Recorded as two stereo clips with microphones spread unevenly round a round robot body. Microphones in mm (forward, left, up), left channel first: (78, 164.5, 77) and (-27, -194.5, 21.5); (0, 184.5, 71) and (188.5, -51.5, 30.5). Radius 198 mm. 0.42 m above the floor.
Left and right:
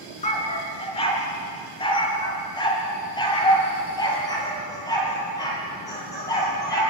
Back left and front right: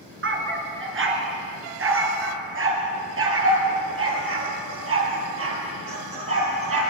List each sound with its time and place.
0.2 s a dog barking: straight ahead, 3 m; by 6.8 s 5° right, 6.5 m